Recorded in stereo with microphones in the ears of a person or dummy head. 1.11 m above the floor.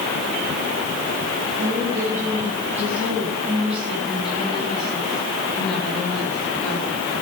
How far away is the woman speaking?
About 9 m.